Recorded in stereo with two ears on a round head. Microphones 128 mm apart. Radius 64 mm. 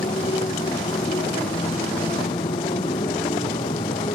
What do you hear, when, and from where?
0.0 s a motorcycle: 35° left (ahead or behind)